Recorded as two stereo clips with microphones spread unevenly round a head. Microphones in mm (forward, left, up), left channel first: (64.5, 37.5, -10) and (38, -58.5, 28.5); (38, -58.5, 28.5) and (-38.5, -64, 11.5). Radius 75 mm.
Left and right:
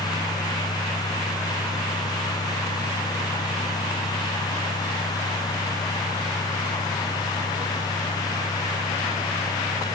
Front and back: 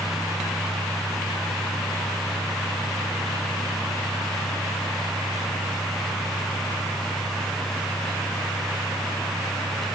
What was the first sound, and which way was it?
Only background noise.